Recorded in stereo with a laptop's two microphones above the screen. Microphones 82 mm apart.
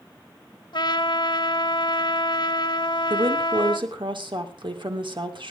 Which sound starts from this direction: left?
A trumpet, at 0.7 s.